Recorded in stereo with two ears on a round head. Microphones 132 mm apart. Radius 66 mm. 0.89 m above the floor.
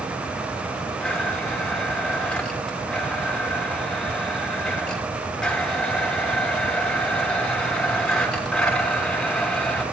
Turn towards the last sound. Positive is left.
turn(degrees=5)  # may be behind; listen again after turning